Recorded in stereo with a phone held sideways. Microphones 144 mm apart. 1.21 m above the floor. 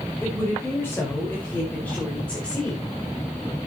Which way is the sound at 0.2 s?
15° left (ahead or behind).